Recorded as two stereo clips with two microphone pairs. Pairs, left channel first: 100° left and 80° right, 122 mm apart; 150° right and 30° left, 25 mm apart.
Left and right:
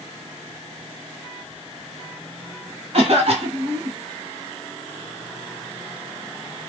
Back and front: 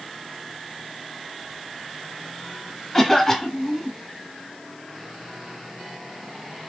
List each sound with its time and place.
2.9 s a cough: 70° right, 2.5 m